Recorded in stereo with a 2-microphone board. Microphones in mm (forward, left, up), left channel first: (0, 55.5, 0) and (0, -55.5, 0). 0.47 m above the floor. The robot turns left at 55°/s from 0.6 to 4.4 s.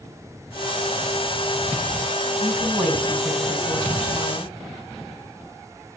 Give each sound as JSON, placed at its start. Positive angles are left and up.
{"t": 2.4, "sound": "a woman speaking", "azimuth_deg": -145, "distance_m": 5.0}